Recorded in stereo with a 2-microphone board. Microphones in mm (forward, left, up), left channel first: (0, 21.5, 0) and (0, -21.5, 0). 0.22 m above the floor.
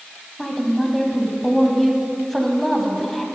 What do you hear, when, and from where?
0.4 s a woman speaking: 5° left (ahead or behind), 1.3 m